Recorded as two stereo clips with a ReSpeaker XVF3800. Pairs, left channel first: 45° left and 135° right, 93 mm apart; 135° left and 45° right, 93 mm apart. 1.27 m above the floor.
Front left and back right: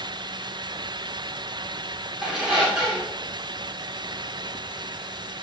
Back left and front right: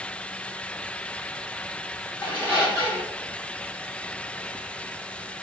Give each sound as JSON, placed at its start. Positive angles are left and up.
{"t": 2.2, "sound": "a squeak", "azimuth_deg": 140, "distance_m": 1.2}